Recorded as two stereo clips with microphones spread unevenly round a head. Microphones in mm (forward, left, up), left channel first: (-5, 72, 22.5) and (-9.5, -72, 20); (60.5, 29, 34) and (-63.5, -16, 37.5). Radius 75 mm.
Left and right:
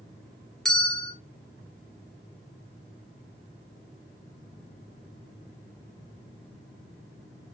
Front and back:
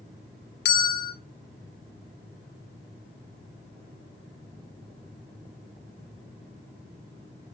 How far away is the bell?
About 0.8 m.